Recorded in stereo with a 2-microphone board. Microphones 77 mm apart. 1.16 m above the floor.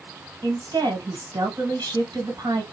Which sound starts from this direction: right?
A woman speaking, at 0.4 s.